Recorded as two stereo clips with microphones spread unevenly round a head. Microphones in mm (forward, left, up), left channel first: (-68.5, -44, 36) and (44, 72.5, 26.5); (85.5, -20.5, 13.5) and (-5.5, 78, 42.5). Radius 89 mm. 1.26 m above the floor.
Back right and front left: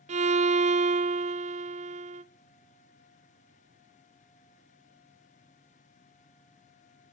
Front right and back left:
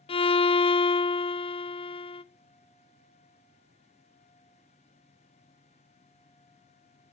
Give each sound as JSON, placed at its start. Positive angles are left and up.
{"t": 0.1, "sound": "a violin", "azimuth_deg": 0, "distance_m": 0.6}